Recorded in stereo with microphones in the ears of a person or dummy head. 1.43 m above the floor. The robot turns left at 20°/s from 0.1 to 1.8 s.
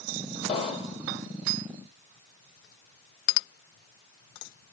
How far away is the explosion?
About 1.8 m.